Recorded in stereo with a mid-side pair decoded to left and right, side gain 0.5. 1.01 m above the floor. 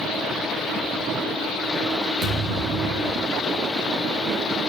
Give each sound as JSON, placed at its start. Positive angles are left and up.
{"t": 2.2, "sound": "a thud", "azimuth_deg": -65, "distance_m": 6.5}